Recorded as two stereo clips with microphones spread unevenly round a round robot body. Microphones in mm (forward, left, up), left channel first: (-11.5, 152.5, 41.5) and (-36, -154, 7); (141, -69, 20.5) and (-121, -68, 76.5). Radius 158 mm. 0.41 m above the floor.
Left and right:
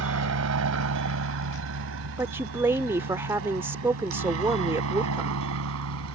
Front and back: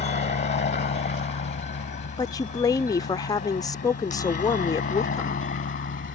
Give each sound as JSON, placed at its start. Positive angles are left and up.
{"t": 0.0, "sound": "a helicopter", "azimuth_deg": -55}
{"t": 2.2, "sound": "a woman speaking", "azimuth_deg": -30}